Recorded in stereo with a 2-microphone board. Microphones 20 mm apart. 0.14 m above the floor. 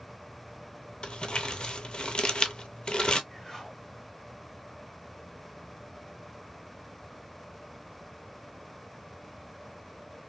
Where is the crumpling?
65° left (ahead or behind), 0.6 m.